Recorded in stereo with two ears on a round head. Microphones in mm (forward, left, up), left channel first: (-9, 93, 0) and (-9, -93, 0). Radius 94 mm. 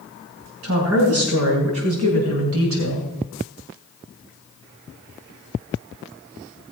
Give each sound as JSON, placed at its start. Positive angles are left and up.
{"t": 0.6, "sound": "a woman speaking", "side_deg": -75, "distance_m": 6.0}